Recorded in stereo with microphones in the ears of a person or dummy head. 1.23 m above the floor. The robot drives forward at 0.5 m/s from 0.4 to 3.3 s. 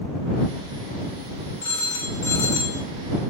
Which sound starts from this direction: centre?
A phone ringing, at 1.6 s.